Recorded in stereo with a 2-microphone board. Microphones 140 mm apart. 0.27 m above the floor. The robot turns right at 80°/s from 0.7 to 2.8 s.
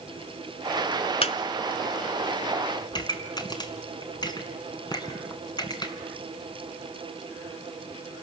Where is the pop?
30° left (ahead or behind), 1.9 m.